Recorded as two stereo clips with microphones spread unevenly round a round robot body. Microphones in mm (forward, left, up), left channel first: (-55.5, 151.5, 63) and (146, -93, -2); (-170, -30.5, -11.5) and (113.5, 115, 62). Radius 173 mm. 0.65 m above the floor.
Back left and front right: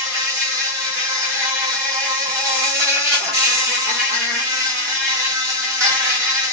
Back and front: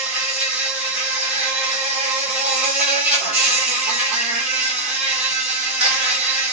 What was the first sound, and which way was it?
An insect, 85° right.